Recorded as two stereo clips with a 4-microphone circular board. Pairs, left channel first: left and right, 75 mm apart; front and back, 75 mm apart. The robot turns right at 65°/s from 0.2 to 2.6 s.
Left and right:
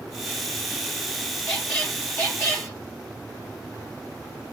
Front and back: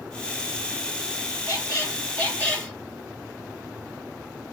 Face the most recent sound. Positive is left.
turn(degrees=80)